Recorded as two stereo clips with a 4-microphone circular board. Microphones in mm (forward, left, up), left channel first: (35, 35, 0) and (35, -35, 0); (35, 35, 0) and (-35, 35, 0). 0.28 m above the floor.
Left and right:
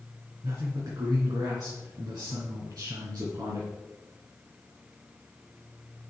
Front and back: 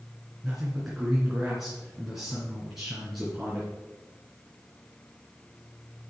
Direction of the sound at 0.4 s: 95° right.